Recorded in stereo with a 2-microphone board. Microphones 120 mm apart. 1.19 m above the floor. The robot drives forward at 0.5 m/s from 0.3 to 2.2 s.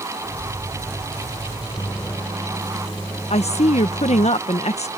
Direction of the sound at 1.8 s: 15° left (ahead or behind).